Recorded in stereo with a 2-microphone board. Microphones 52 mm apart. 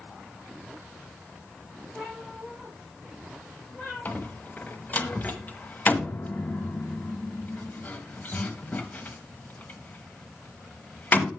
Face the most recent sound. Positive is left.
turn(degrees=35)  # may be behind; listen again after turning